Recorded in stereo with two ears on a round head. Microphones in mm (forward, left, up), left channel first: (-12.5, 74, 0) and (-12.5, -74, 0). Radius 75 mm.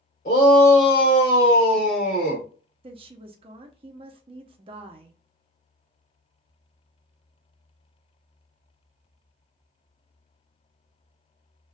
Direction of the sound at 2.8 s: 35° right (ahead or behind).